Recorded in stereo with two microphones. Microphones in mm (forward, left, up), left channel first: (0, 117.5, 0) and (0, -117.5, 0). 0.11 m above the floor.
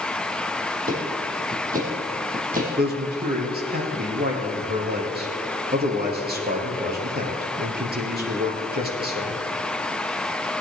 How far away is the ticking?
About 3.5 m.